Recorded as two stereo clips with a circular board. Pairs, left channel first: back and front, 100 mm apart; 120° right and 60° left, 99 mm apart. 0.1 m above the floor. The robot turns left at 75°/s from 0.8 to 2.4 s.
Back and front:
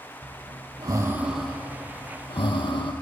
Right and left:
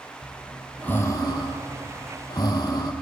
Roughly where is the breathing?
Ahead right.